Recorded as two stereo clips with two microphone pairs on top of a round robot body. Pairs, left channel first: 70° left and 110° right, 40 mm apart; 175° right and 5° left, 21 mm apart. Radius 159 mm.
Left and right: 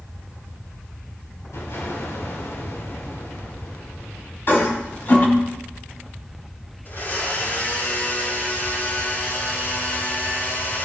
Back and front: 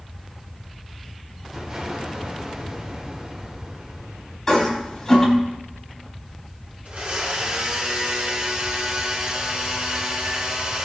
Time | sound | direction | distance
1.5 | an explosion | 65° left | 3.5 m
4.5 | a toilet flushing | 105° left | 5.5 m
6.8 | a blender | 35° left | 6 m